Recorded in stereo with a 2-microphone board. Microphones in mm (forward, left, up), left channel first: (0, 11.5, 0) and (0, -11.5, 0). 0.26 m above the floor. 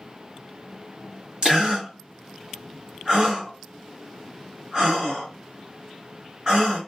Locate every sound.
1.4 s a gasp: 30° right (ahead or behind), 2 m